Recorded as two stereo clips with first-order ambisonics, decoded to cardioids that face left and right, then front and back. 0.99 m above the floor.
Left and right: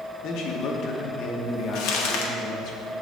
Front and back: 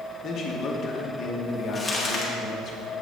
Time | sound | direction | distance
0.2 | a man speaking | 55° left | 0.8 m
1.8 | crumpling | 80° left | 0.8 m